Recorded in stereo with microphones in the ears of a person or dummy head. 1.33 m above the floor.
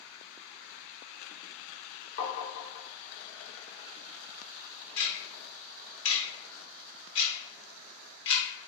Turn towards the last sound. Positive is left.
turn(degrees=70)  # may be behind; listen again after turning